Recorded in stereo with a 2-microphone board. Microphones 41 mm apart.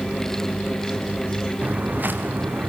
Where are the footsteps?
45° right (ahead or behind), 3 m; by 2.7 s 60° right (ahead or behind), 4 m.